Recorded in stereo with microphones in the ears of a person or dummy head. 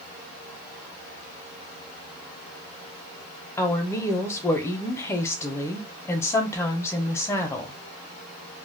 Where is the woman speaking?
10° left (ahead or behind), 0.6 m.